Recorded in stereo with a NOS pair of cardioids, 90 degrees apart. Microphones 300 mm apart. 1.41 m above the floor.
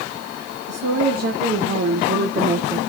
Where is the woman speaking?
50° right, 1.5 m; by 2.8 s 20° right, 0.5 m.